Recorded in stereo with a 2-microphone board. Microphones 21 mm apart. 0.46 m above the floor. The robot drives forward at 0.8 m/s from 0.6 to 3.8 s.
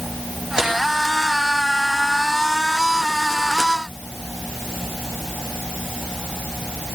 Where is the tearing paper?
35° right (ahead or behind), 9 m.